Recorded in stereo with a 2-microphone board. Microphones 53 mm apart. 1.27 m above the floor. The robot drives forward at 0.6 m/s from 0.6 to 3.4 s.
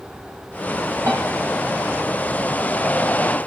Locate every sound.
1.1 s a piano: 70° right (ahead or behind), 5 m